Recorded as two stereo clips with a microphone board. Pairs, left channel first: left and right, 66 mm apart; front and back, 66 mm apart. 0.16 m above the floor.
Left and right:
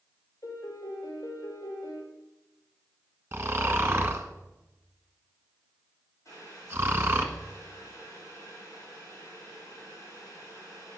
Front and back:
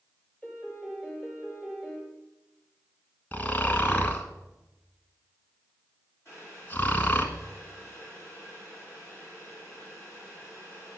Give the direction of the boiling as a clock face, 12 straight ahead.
10 o'clock.